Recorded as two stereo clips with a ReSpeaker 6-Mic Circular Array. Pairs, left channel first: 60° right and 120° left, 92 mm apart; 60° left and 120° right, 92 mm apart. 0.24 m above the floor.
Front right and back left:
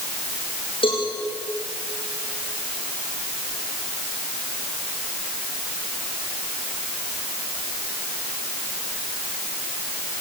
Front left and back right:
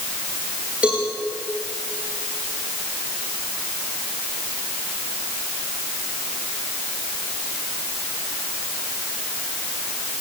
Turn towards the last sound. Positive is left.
turn(degrees=-45)